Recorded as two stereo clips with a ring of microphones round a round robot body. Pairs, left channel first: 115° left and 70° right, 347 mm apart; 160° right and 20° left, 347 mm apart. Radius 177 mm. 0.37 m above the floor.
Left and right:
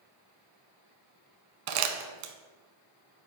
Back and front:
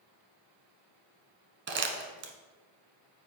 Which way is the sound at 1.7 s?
40° right.